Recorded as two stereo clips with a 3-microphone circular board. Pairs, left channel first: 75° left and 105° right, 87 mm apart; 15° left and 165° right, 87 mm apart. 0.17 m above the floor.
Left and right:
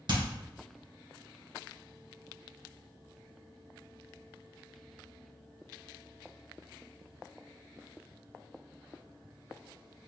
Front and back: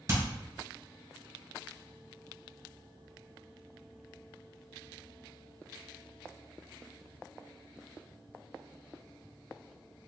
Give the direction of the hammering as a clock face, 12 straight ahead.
4 o'clock.